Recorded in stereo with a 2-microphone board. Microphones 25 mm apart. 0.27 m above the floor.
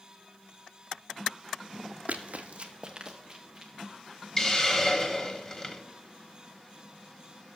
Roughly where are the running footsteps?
Right.